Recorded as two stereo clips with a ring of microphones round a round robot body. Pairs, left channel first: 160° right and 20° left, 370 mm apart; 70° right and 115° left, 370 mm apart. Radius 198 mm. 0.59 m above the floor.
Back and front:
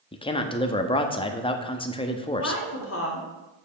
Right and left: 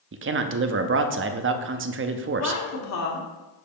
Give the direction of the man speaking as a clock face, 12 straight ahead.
7 o'clock.